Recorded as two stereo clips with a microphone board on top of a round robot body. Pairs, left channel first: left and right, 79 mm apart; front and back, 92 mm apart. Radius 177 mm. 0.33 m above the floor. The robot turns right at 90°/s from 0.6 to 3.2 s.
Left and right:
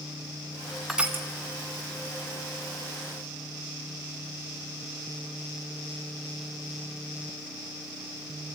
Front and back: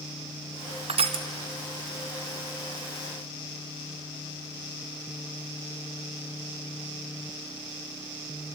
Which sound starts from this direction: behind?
Crushing, at 0.9 s.